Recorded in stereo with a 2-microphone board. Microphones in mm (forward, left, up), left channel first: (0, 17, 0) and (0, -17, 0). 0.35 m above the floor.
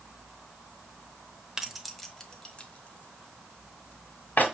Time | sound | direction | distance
1.6 | keys jangling | 10° right (ahead or behind) | 0.7 m